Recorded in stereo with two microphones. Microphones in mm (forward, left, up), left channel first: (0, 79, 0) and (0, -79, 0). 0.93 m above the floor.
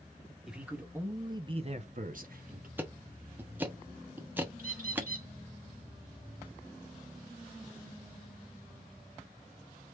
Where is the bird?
60° right (ahead or behind), 1.9 m.